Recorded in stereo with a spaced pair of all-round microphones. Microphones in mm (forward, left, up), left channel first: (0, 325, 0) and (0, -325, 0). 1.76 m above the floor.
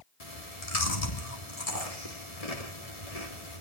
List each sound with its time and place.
0.2 s chewing: 65° left (ahead or behind), 3 m